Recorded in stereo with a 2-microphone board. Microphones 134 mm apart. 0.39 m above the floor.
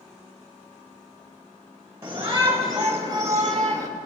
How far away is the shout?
About 1.3 m.